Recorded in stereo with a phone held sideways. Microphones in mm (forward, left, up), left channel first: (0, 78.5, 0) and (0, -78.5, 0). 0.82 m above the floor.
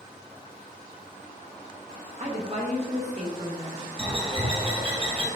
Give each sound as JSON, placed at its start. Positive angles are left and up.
{"t": 2.2, "sound": "a woman speaking", "side_deg": -45, "distance_m": 1.2}
{"t": 4.0, "sound": "a bird", "side_deg": -35, "distance_m": 0.9}